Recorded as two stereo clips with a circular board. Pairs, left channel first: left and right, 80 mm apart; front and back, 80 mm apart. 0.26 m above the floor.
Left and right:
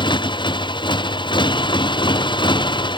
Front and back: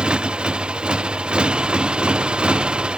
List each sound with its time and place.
0.0 s a motorcycle: 100° left